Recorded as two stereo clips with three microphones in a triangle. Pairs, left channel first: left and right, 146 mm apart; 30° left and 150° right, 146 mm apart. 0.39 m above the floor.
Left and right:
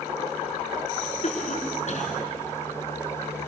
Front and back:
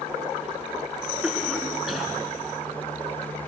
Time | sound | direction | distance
1.2 | a cough | 120° left | 5 m